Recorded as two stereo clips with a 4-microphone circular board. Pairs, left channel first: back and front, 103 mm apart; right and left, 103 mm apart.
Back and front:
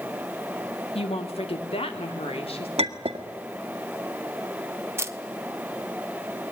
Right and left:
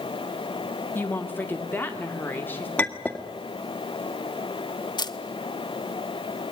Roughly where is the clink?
Ahead.